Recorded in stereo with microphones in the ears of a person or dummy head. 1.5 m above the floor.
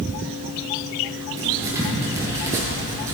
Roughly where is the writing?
Centre.